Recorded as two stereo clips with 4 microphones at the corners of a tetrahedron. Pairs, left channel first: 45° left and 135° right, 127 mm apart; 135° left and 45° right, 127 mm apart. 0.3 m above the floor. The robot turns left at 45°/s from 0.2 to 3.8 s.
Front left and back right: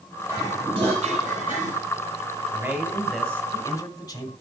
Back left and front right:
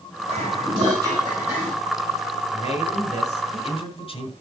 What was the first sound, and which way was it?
Dishes clattering, 65° right.